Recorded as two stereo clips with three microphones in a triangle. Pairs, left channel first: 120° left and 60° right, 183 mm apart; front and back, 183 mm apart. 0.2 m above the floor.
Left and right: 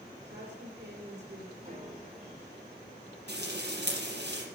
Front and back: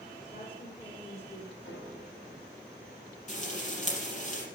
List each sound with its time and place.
0.2 s a woman speaking: 60° right, 5.5 m
1.6 s a piano: straight ahead, 6 m
3.3 s frying: 45° right, 4.5 m